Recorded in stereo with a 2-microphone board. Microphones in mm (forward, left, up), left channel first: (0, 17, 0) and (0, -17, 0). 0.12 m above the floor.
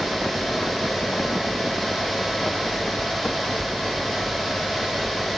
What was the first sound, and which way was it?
Only background noise.